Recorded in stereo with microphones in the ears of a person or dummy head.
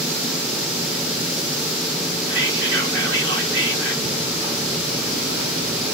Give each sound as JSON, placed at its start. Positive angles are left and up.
{"t": 2.3, "sound": "whispering", "side_deg": -70, "distance_m": 3.5}
{"t": 4.0, "sound": "ticking", "side_deg": -40, "distance_m": 4.5}